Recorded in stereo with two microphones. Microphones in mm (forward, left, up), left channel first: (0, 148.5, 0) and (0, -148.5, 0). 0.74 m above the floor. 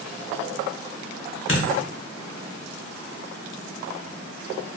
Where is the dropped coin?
45° left (ahead or behind), 0.6 m.